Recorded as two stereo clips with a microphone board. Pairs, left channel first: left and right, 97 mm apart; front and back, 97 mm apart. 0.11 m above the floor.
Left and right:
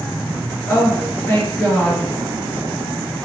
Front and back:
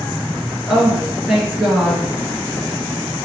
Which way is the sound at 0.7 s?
120° left.